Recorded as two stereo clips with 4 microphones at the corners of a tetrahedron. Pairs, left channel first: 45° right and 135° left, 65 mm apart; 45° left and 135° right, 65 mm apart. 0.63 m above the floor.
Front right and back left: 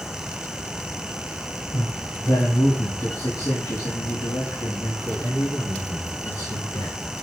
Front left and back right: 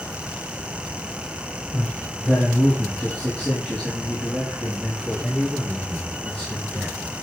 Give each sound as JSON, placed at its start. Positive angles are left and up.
{"t": 1.7, "sound": "a man speaking", "azimuth_deg": -25, "distance_m": 3.0}